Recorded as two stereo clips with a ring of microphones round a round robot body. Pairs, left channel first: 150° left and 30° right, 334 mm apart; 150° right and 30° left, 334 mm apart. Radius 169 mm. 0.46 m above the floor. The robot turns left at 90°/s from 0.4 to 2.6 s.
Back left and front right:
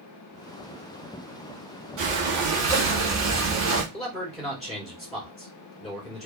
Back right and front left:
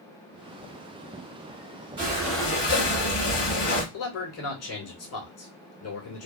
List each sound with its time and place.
2.0 s breathing: 30° right, 1.5 m; by 3.8 s 85° right, 1.5 m
3.9 s a man speaking: 120° right, 2 m